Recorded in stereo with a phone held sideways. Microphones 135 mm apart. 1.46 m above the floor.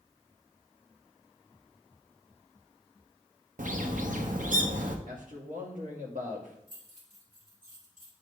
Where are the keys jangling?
70° right (ahead or behind), 3 m.